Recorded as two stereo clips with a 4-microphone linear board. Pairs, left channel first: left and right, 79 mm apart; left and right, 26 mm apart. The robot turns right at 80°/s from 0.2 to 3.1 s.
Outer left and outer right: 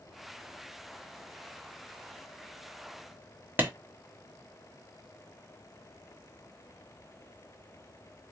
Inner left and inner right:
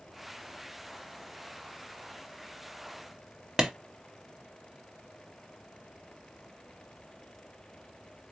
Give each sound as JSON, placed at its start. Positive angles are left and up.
{"t": 3.6, "sound": "a clap", "side_deg": -25, "distance_m": 1.1}